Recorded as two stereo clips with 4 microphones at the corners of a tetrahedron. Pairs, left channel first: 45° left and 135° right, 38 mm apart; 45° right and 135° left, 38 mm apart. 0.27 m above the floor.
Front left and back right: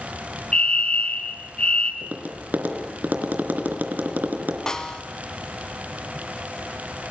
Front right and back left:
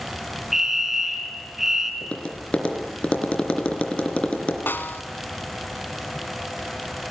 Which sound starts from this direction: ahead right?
A snare drum, at 4.7 s.